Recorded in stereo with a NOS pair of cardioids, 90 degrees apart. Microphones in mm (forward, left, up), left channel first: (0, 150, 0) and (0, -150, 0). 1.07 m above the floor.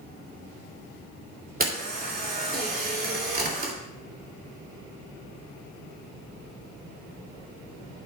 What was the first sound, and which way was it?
A camera shutter, 30° right.